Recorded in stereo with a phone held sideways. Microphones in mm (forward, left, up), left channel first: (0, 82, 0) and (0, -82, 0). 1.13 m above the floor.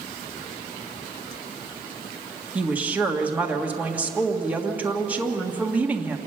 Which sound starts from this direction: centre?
A woman speaking, at 2.5 s.